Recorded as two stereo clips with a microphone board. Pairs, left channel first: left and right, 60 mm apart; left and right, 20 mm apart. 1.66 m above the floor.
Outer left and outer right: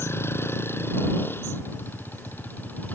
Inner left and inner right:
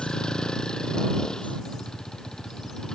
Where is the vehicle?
40° left (ahead or behind); by 3.0 s 30° left (ahead or behind).